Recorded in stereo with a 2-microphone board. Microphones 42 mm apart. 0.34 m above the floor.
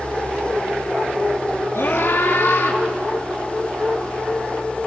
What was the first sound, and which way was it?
A scream, 75° left (ahead or behind).